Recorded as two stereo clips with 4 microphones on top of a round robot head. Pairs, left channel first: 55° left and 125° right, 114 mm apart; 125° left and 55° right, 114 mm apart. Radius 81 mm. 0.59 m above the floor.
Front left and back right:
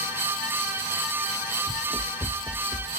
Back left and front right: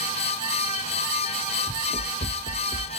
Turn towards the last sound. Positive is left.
turn(degrees=125)